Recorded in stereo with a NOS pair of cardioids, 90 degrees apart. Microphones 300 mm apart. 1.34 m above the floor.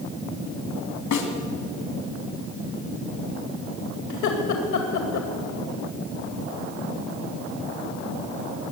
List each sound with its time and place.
1.1 s a snare drum: 70° left, 3 m
4.1 s laughter: 70° left, 2 m